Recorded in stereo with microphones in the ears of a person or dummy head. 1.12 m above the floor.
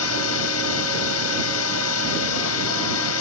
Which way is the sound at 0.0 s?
80° left.